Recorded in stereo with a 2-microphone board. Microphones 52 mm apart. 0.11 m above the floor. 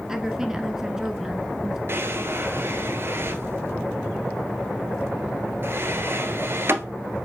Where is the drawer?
50° right (ahead or behind), 1.1 m.